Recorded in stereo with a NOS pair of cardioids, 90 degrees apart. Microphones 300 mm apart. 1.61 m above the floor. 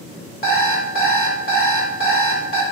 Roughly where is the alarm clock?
Ahead left.